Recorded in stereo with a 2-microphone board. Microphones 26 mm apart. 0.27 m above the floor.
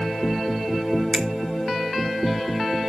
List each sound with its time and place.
1.1 s a finger snap: 25° right (ahead or behind), 0.9 m